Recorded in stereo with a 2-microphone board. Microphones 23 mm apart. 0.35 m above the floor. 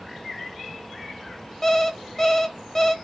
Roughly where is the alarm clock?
Centre.